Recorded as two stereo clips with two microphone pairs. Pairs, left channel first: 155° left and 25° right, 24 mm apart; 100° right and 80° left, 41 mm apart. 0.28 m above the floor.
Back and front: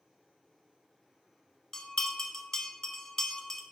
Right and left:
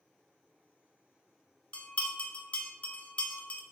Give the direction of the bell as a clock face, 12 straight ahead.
5 o'clock.